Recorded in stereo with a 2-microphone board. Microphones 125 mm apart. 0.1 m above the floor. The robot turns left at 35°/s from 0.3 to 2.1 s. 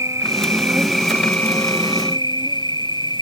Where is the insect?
155° right; by 3.2 s 140° left.